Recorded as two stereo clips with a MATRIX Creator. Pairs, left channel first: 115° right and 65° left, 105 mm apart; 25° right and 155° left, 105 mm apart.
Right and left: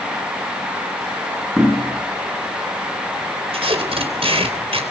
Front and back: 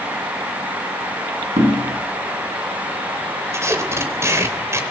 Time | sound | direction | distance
1.6 | knocking | 160° left | 8 m
3.5 | tape being pulled | 95° left | 3.5 m